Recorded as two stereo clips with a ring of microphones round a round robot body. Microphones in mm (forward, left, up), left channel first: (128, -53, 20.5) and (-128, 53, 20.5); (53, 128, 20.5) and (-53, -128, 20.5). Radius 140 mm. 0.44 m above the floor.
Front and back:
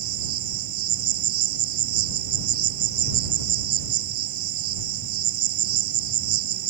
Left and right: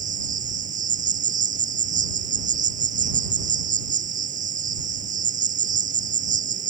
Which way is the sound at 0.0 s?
175° right.